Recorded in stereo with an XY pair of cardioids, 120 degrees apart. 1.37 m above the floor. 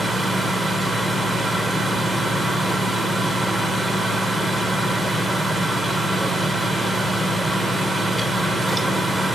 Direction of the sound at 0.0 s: Straight ahead.